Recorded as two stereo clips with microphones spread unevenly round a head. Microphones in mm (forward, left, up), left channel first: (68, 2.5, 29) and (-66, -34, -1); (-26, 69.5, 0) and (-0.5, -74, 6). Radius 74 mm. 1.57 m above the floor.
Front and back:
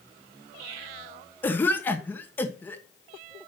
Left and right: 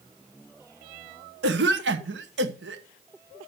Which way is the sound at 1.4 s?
60° right.